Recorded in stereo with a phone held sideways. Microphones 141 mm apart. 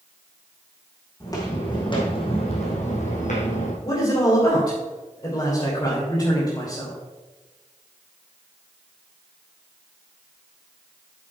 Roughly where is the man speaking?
Left.